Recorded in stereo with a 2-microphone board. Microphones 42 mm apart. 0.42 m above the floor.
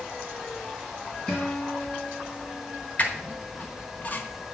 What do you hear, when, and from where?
1.3 s a guitar: 15° left (ahead or behind), 3 m
3.0 s a squeak: 40° left (ahead or behind), 1.0 m